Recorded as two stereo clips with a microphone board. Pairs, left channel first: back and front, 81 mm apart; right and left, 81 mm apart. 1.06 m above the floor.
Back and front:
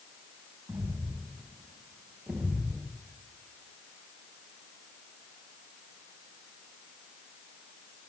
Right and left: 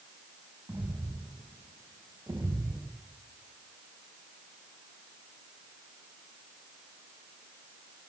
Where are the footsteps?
50° left, 4 m; by 2.9 s 130° left, 1.2 m.